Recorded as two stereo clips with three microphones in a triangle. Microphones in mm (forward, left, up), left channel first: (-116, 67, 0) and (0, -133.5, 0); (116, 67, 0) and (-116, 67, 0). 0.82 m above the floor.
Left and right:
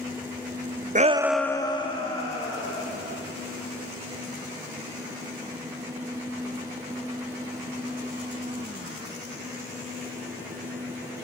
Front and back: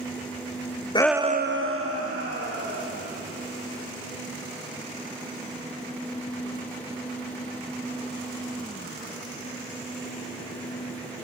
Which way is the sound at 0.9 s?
50° right.